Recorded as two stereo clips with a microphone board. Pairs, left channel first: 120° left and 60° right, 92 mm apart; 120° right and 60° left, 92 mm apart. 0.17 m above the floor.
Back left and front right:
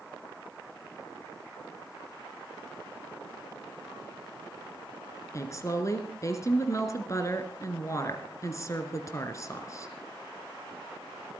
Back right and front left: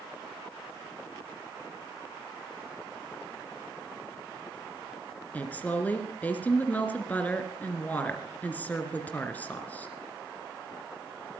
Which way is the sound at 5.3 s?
170° left.